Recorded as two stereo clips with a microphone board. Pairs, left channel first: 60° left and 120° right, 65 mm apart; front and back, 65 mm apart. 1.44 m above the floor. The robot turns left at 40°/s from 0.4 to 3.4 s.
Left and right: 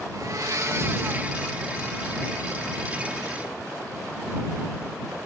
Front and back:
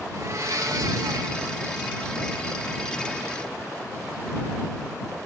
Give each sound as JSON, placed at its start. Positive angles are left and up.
{"t": 0.1, "sound": "a blender", "azimuth_deg": -145}